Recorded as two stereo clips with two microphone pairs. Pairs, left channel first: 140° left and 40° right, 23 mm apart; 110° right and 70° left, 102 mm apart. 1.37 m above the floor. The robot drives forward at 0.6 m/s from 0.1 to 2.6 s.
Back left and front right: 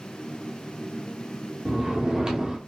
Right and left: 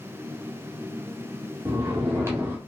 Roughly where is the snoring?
Ahead.